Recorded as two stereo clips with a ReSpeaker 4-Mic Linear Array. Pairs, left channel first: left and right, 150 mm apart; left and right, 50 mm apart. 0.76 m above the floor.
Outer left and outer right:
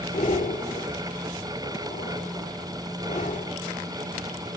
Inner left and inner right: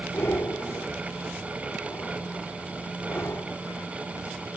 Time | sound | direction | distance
0.1 | breathing | 60° left (ahead or behind) | 2 m